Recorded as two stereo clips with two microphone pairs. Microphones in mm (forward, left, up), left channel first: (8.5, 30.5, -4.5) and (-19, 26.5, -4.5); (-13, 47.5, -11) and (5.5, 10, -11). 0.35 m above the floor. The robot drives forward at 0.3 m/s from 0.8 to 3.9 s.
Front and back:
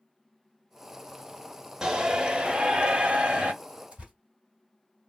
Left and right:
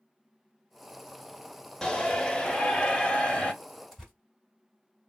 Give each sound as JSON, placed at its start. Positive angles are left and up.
{"t": 1.8, "sound": "a shout", "azimuth_deg": 160, "distance_m": 0.8}
{"t": 3.9, "sound": "tearing paper", "azimuth_deg": -150, "distance_m": 1.9}